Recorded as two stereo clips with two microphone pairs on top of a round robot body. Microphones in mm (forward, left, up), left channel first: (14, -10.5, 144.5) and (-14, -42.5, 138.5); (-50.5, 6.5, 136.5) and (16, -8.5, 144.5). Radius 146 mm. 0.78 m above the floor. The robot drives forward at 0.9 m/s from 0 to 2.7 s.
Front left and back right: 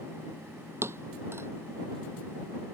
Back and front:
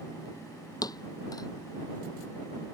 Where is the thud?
160° right.